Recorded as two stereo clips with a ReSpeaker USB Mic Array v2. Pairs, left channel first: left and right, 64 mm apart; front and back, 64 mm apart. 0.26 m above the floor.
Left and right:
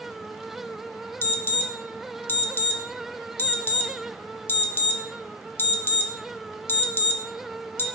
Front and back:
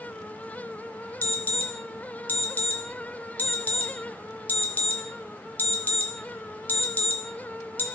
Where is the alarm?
50° left, 0.9 m.